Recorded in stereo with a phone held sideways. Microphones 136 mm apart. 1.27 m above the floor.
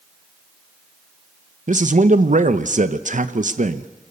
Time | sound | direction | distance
1.7 | a man speaking | 65° right (ahead or behind) | 0.9 m